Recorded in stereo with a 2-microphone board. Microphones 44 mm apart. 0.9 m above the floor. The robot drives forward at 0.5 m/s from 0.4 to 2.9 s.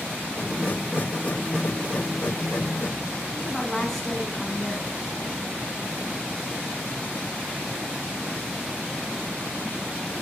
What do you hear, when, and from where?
3.3 s a woman speaking: 5° left (ahead or behind), 7 m